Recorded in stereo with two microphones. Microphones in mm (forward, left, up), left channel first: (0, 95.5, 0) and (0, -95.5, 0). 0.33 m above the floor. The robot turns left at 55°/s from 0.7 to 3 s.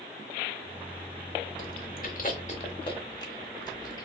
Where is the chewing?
45° left (ahead or behind), 1.0 m; by 4.1 s 20° left (ahead or behind), 1.0 m.